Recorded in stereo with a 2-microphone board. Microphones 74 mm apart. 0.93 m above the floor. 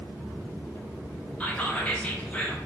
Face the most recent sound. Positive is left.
turn(degrees=15)  # may be behind; listen again after turning